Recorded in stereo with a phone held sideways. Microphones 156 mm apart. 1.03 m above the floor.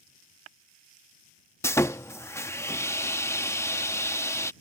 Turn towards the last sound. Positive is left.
turn(degrees=15)  # may be behind; listen again after turning